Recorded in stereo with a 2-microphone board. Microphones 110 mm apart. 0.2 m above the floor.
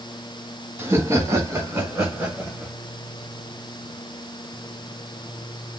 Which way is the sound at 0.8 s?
25° right (ahead or behind).